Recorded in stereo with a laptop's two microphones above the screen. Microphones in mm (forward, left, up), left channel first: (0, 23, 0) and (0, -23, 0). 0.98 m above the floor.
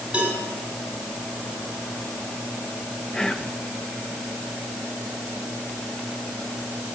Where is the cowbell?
20° right (ahead or behind), 8.5 m.